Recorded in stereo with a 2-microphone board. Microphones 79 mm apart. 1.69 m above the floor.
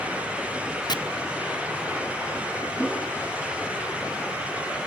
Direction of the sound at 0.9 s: 60° left (ahead or behind).